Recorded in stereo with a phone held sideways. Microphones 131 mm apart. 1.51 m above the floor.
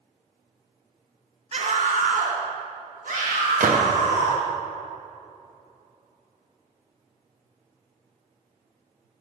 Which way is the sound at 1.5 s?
45° right (ahead or behind).